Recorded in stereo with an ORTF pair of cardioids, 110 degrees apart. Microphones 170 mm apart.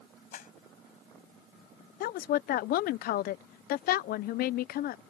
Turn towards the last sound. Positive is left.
turn(degrees=65)